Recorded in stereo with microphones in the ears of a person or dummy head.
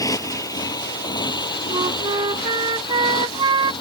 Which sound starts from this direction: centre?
A motorcycle, at 0.0 s.